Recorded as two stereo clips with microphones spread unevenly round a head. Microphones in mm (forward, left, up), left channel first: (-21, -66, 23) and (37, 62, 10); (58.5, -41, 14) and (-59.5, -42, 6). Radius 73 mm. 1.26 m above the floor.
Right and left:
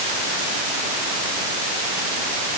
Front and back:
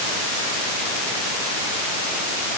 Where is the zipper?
No zipper in this recording.